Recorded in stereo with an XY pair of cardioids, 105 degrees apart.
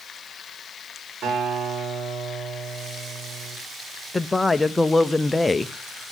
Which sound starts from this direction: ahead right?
A guitar, at 1.2 s.